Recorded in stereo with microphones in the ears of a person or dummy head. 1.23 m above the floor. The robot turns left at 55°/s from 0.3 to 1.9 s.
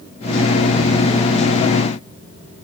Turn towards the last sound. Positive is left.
No sound to turn to.